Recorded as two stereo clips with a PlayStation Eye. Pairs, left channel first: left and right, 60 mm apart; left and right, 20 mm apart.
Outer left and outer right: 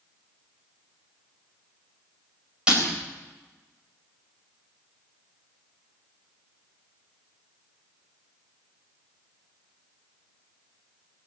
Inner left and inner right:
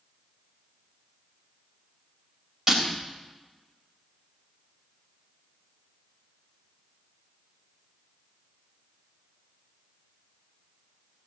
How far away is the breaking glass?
About 4 m.